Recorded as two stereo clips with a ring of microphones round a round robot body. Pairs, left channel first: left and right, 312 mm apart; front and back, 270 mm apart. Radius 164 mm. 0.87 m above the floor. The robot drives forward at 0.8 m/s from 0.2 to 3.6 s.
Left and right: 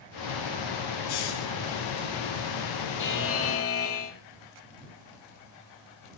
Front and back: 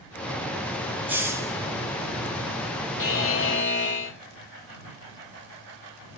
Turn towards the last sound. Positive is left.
turn(degrees=45)